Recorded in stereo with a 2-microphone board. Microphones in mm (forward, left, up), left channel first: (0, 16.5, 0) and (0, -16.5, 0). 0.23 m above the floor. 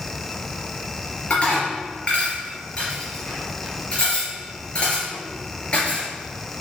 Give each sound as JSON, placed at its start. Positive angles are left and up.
{"t": 1.3, "sound": "dishes clattering", "side_deg": 35, "distance_m": 3.0}